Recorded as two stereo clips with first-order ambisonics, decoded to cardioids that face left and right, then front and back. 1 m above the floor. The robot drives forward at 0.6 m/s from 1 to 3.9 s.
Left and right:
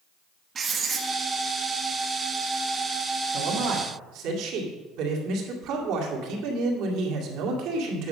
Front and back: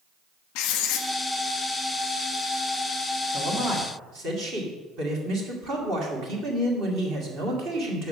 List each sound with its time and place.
0.6 s writing: 20° right, 1.0 m; by 1.1 s 25° right, 1.0 m
3.3 s a man speaking: 120° right, 1.9 m; by 8.1 s 130° right, 2 m